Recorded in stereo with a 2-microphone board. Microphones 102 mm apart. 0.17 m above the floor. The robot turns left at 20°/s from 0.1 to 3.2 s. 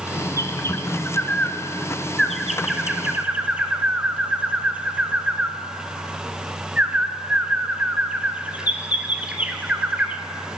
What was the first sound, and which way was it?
A bird, 35° left (ahead or behind).